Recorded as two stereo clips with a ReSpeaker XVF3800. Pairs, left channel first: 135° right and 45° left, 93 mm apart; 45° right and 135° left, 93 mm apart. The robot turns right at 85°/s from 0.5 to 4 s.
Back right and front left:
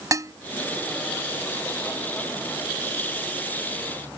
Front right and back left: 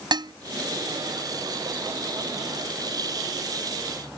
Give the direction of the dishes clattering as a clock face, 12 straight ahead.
9 o'clock.